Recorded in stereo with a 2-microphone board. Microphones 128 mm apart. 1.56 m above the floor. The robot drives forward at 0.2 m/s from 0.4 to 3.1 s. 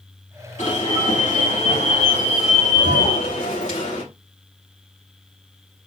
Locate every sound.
0.6 s an alarm: 80° left, 4.5 m; by 4.0 s 75° left (ahead or behind), 5 m